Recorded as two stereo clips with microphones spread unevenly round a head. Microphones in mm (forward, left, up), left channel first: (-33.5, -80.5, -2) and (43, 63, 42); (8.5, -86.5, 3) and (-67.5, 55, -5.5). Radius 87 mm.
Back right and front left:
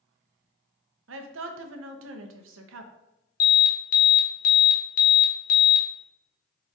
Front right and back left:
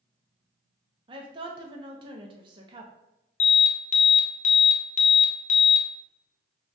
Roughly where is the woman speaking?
Ahead left.